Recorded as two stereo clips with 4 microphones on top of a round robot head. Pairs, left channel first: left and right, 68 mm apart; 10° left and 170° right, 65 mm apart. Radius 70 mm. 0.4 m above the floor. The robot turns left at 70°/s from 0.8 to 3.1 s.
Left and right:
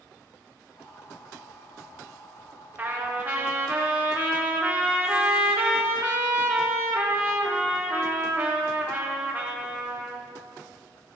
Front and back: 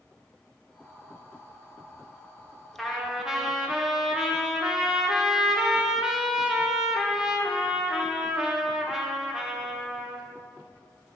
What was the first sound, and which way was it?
A trumpet, 75° right.